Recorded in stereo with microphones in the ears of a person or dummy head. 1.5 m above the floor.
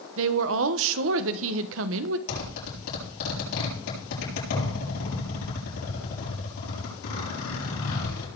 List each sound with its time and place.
0.2 s a woman speaking: 75° right (ahead or behind), 1.1 m
2.3 s a zipper: 80° left, 7.5 m